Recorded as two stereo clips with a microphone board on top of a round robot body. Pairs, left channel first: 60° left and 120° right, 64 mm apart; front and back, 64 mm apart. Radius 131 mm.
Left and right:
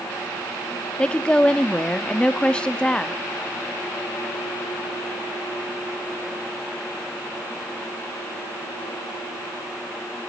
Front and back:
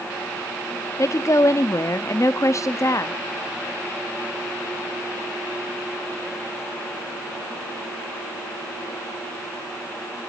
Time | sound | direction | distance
1.0 | a woman speaking | 10° right | 0.9 m